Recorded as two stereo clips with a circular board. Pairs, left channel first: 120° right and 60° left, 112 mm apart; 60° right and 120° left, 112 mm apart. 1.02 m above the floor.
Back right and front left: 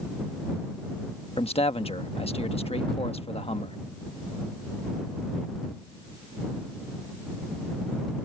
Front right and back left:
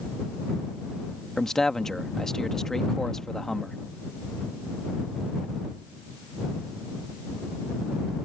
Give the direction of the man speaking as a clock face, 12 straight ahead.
5 o'clock.